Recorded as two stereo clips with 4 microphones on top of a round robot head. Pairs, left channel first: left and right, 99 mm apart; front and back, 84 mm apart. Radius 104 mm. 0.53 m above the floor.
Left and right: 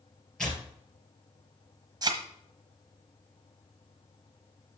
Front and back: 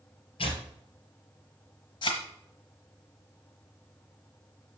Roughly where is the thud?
Ahead right.